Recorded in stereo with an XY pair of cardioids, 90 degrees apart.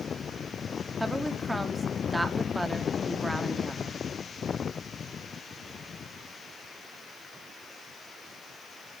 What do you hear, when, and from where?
1.0 s a woman speaking: 5° right, 2 m